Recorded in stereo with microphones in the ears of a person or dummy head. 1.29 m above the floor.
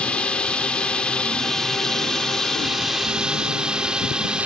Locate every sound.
0.0 s a drone: 10° left (ahead or behind); by 4.5 s 5° right (ahead or behind)